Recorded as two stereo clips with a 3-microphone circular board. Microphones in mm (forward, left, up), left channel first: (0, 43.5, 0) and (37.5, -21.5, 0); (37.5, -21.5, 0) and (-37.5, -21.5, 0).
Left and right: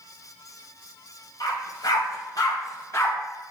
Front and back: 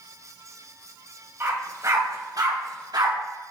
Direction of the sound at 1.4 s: 125° left.